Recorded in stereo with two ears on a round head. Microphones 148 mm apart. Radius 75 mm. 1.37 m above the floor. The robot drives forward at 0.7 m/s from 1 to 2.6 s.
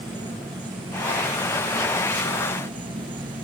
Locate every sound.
0.0 s an insect: 25° right (ahead or behind); by 3.5 s 30° right (ahead or behind)